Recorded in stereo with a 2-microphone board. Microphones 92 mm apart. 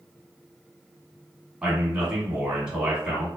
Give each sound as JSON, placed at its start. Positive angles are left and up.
{"t": 1.6, "sound": "a man speaking", "side_deg": -10, "distance_m": 1.4}